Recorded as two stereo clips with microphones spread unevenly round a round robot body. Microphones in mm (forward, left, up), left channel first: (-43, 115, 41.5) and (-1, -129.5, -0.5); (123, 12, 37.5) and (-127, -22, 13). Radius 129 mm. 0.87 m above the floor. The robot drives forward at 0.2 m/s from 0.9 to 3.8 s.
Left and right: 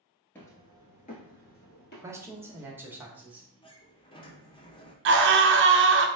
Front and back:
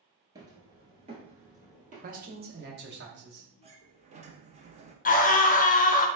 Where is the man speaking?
145° right, 0.8 m; by 3.5 s 155° right, 1.0 m.